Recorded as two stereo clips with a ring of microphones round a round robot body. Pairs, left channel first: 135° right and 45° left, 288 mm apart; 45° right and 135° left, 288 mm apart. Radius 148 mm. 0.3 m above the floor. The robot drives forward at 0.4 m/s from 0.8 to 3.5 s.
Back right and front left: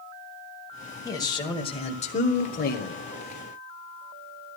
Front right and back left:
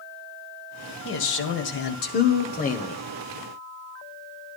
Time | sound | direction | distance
1.1 | a man speaking | 60° right | 1.7 m